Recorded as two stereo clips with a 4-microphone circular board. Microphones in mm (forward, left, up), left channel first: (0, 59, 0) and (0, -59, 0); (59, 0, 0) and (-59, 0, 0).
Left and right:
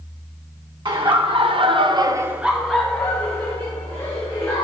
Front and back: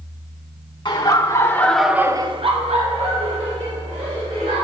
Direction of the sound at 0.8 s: 50° right.